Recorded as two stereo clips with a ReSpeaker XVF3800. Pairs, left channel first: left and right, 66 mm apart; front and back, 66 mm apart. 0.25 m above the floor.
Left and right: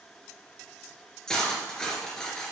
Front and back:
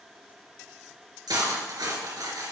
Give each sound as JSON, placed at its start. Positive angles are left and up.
{"t": 1.3, "sound": "cutlery clinking", "azimuth_deg": 170, "distance_m": 2.5}